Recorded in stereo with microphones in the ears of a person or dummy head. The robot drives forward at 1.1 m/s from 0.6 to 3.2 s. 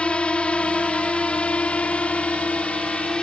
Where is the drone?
Centre (ahead or behind).